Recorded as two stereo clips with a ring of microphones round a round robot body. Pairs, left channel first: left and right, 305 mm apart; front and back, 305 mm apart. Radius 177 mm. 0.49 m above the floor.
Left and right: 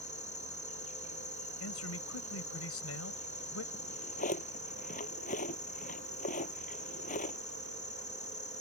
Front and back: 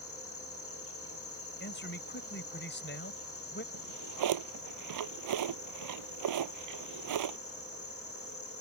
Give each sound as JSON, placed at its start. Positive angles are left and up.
{"t": 0.0, "sound": "an insect", "azimuth_deg": 30}
{"t": 1.6, "sound": "a man speaking", "azimuth_deg": 55}
{"t": 3.7, "sound": "a drawer", "azimuth_deg": 160}